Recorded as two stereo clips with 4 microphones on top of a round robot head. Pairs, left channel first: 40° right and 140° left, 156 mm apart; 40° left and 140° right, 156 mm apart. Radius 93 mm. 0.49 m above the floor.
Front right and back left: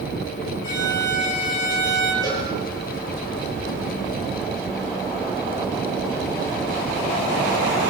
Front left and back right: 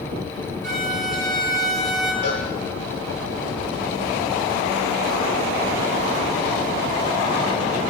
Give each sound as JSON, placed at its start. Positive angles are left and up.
{"t": 0.6, "sound": "a violin", "azimuth_deg": -45, "distance_m": 5.0}
{"t": 2.2, "sound": "a cowbell", "azimuth_deg": 25, "distance_m": 9.0}